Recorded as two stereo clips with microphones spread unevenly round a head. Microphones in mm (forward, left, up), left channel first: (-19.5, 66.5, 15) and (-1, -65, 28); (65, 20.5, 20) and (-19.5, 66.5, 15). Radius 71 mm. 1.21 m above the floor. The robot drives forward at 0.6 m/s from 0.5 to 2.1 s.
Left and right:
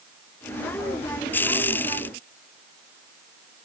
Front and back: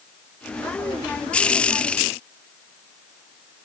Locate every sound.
Only background noise.